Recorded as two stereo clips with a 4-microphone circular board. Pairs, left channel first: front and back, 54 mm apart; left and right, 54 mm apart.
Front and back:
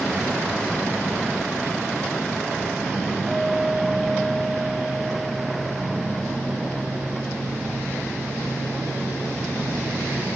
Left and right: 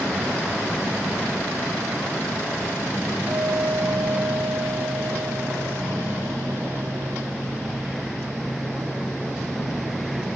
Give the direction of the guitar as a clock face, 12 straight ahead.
3 o'clock.